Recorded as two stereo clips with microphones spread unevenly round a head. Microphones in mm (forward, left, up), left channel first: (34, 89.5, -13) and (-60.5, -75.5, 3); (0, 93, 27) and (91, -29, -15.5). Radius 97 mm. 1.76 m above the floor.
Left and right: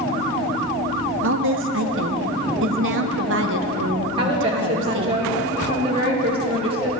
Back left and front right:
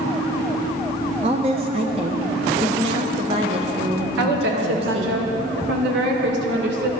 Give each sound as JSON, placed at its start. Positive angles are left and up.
{"t": 1.2, "sound": "a woman speaking", "azimuth_deg": -120, "distance_m": 1.1}
{"t": 4.2, "sound": "a woman speaking", "azimuth_deg": -55, "distance_m": 2.5}